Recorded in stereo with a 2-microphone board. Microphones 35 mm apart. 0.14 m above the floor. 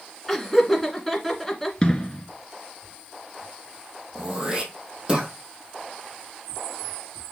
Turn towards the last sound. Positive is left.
turn(degrees=-25)  # may be behind; listen again after turning